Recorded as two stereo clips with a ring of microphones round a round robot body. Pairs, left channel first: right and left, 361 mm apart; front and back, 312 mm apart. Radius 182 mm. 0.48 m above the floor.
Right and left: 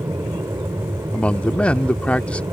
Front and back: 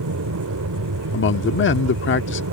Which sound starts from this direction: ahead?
A man speaking, at 1.1 s.